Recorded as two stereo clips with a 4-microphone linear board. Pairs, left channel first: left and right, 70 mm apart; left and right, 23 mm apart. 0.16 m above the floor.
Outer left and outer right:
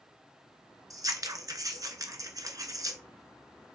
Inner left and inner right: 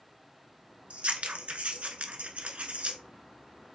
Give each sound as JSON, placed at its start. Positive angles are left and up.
{"t": 0.9, "sound": "scissors", "side_deg": -60, "distance_m": 0.8}